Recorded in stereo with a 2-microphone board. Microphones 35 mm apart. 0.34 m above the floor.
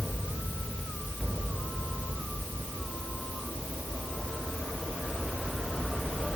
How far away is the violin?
I don't hear a violin.